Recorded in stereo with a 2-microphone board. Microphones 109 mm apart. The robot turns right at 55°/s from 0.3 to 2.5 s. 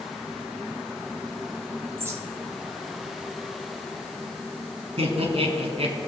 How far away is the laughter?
About 1.7 m.